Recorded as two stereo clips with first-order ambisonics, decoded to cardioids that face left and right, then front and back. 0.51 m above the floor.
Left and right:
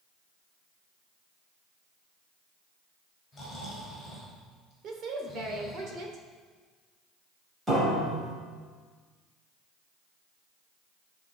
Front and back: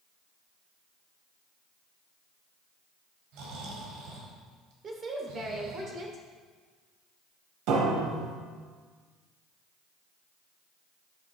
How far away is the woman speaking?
About 1.6 m.